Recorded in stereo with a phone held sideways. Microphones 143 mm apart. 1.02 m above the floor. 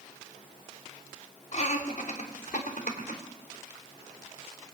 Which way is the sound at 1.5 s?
50° left (ahead or behind).